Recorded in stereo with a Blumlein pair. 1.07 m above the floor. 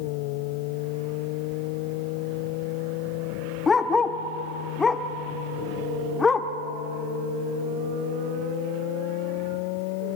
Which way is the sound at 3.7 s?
15° left.